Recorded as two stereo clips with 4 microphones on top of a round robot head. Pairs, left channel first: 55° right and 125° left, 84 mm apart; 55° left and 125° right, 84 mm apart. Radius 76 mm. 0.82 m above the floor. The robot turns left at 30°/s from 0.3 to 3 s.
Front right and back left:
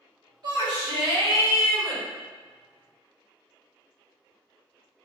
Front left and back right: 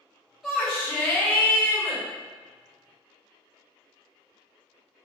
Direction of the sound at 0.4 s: 140° left.